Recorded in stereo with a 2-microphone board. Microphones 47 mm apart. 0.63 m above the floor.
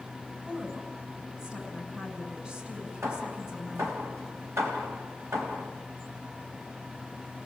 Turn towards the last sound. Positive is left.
turn(degrees=-75)  # may be behind; listen again after turning